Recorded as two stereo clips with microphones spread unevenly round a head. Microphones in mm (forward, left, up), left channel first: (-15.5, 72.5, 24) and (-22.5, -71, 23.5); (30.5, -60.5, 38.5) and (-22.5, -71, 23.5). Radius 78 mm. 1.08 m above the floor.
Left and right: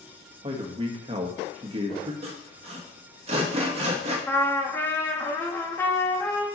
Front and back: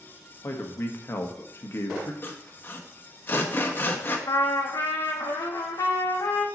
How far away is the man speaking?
About 1.3 m.